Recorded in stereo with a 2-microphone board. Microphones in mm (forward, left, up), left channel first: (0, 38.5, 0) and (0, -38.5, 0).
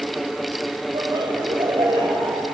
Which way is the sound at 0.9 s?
80° right.